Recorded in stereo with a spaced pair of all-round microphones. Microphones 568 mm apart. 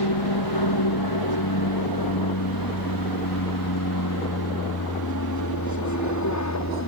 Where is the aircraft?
45° left (ahead or behind); by 6.9 s 30° left (ahead or behind).